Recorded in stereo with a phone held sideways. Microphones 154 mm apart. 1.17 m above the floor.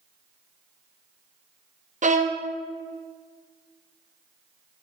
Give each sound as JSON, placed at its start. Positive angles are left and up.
{"t": 2.0, "sound": "a violin", "side_deg": -55, "distance_m": 0.7}